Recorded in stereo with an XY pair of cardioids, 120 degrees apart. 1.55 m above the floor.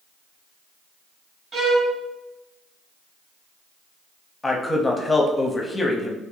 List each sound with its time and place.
1.5 s a violin: 45° right, 1.0 m
4.4 s a man speaking: 15° left, 0.7 m